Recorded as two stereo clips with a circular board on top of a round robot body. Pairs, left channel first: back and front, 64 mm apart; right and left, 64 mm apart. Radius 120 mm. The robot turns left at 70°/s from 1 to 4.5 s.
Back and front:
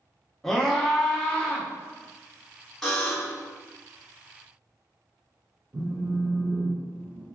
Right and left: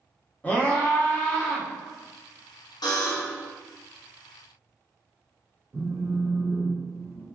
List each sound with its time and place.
0.4 s a scream: 110° right, 1.0 m; by 1.7 s 155° right, 1.0 m
2.8 s a buzzer: 100° right, 0.8 m; by 3.5 s 145° right, 0.8 m
5.7 s a phone buzzing: 50° left, 1.4 m